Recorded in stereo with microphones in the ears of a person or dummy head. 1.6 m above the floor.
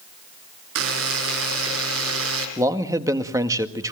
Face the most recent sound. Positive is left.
turn(degrees=-20)  # may be behind; listen again after turning